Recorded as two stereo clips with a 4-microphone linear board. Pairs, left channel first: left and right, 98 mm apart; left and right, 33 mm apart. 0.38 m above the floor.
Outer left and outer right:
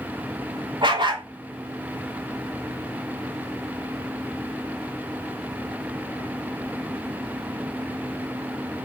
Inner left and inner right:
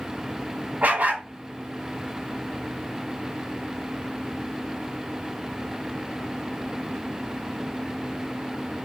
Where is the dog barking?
50° right (ahead or behind), 1.1 m.